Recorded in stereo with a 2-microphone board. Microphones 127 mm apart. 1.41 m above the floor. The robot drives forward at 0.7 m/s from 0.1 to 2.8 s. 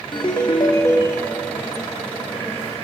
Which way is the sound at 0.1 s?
40° left (ahead or behind).